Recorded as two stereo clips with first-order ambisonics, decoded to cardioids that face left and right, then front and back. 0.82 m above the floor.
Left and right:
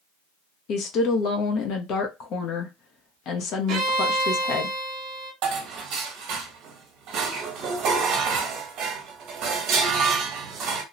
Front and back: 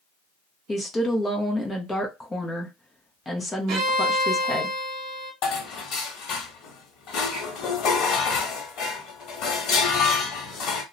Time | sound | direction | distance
0.7 | a woman speaking | 75° left | 0.6 m
3.7 | a violin | 135° right | 0.8 m
5.4 | dishes clattering | 45° right | 0.9 m